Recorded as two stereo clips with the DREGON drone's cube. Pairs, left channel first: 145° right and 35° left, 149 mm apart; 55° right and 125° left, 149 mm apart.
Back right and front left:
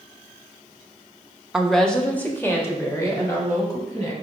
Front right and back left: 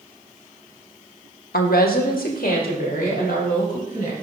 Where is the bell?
No bell in this recording.